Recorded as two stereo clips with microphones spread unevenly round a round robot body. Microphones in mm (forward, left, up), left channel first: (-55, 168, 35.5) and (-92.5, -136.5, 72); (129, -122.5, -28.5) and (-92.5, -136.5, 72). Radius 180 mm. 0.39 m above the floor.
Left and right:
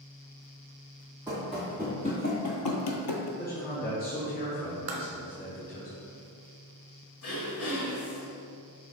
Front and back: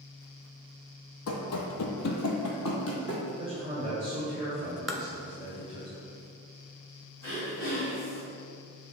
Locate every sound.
1.3 s running footsteps: 20° right, 0.9 m; by 3.3 s 85° left, 0.8 m
3.4 s a man speaking: 95° left, 1.3 m
4.9 s tapping: 90° right, 0.8 m
7.2 s throat clearing: 65° left, 1.6 m